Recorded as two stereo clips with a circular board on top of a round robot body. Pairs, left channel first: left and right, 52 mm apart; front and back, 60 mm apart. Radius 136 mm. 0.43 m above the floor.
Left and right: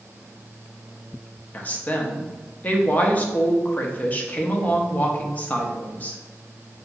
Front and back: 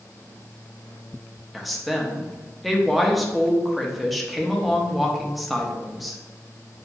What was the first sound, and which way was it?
A woman speaking, 90° left.